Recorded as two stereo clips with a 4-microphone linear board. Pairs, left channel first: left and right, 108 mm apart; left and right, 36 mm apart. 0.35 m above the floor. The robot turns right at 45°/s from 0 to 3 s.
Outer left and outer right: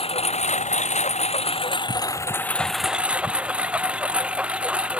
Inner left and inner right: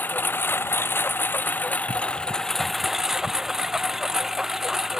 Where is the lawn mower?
55° left; by 5.0 s 170° right.